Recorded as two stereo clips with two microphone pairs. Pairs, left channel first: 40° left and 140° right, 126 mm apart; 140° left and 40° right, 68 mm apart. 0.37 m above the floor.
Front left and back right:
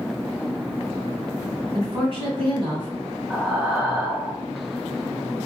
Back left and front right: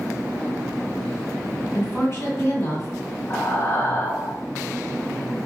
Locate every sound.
1.7 s a woman speaking: 170° right, 1.8 m
3.3 s breathing: 140° left, 1.0 m